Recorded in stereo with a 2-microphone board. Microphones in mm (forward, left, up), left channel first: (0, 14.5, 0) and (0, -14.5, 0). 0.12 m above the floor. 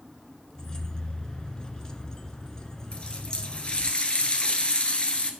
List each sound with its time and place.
0.6 s keys jangling: 20° left (ahead or behind), 0.9 m
2.9 s a running tap: 40° left (ahead or behind), 1.1 m